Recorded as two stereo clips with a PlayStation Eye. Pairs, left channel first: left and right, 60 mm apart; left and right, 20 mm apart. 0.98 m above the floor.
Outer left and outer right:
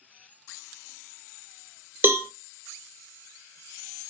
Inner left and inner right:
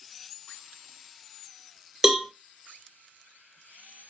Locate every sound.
2.0 s a cowbell: 35° right (ahead or behind), 0.6 m